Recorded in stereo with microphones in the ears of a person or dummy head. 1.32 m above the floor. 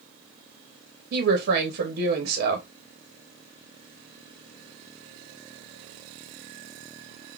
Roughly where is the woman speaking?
Right.